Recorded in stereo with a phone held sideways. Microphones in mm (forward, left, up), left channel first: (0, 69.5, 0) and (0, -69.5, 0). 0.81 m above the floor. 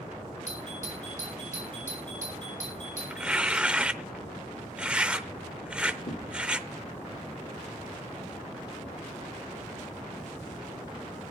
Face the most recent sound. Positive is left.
turn(degrees=55)  # may be behind; listen again after turning